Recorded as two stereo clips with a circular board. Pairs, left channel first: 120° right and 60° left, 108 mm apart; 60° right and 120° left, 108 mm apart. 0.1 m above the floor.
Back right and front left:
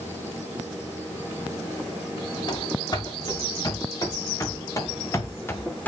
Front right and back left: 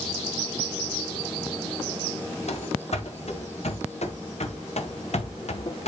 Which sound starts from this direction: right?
Running footsteps, at 2.5 s.